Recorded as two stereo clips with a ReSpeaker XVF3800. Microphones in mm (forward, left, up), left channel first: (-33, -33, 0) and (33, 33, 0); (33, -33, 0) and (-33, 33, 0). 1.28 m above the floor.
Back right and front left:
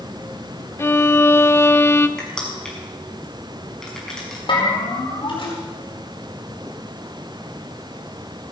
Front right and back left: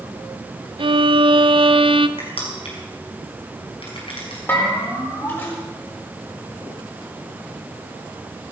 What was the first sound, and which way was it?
A violin, 160° left.